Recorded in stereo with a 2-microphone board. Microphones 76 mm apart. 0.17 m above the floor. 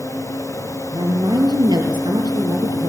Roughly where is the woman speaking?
Right.